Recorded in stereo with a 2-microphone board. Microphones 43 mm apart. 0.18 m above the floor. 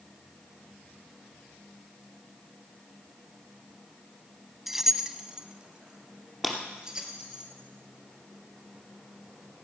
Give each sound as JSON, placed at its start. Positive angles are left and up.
{"t": 4.7, "sound": "keys jangling", "side_deg": -5, "distance_m": 0.7}
{"t": 6.4, "sound": "breaking glass", "side_deg": -5, "distance_m": 2.5}